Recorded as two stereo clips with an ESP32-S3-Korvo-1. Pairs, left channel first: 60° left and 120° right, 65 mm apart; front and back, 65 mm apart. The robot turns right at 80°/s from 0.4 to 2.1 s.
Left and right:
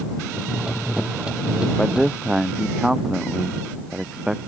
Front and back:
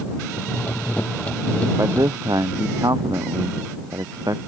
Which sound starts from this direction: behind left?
A man speaking, at 1.8 s.